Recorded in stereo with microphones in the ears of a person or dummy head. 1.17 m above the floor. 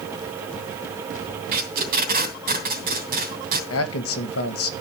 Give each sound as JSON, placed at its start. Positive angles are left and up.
{"t": 1.5, "sound": "tape being pulled", "side_deg": -55, "distance_m": 3.0}
{"t": 3.7, "sound": "a man speaking", "side_deg": 70, "distance_m": 1.7}